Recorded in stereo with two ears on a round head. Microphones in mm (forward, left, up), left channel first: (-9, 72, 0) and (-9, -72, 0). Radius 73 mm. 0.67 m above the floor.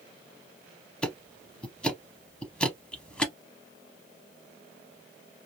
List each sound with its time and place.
1.0 s ticking: 5° left (ahead or behind), 0.6 m